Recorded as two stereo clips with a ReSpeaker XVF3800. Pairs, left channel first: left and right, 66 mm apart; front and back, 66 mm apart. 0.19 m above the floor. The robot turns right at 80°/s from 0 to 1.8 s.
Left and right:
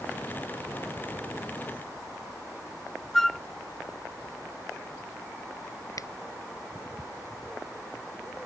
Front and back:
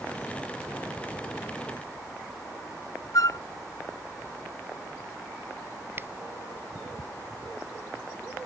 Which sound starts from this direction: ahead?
A flute, at 3.1 s.